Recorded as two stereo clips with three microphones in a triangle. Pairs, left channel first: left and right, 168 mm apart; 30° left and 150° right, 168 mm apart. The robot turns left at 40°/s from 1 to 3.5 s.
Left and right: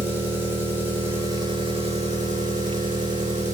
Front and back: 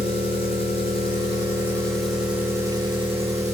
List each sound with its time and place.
0.0 s an engine running: 20° right, 1.0 m; by 3.5 s 120° right, 1.0 m